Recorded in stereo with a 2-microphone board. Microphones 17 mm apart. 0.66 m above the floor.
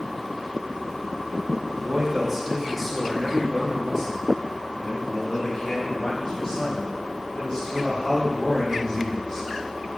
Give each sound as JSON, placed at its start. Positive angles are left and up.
{"t": 1.8, "sound": "a man speaking", "side_deg": -30, "distance_m": 1.4}